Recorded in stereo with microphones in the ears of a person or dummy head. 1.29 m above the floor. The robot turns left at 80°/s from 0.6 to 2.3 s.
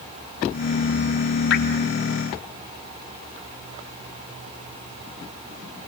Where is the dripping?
80° left, 4 m; by 1.6 s 70° left (ahead or behind), 4 m.